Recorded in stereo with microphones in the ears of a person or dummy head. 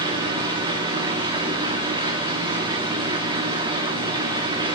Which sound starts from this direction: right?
A machine running, at 0.0 s.